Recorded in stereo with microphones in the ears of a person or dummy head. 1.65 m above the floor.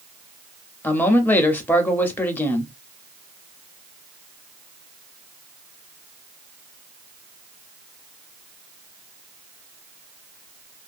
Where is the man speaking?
15° left (ahead or behind), 0.5 m.